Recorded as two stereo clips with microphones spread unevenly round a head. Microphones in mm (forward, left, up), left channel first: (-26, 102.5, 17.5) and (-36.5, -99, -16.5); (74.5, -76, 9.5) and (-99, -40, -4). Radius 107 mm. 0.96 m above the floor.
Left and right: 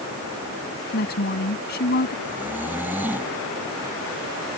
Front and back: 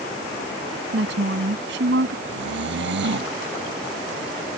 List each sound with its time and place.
0.9 s a woman speaking: 125° left
2.2 s snoring: 175° right